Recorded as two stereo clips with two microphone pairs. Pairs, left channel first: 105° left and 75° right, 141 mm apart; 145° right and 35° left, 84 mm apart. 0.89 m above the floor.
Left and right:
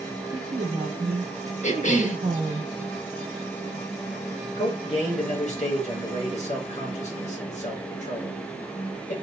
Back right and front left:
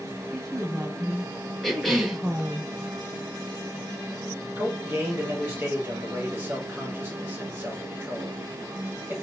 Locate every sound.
0.3 s a woman speaking: 45° right, 0.7 m
1.6 s a cough: 125° left, 0.9 m
4.6 s a man speaking: 95° left, 1.4 m